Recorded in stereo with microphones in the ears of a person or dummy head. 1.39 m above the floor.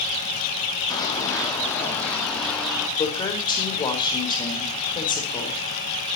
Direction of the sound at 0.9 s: 15° left (ahead or behind).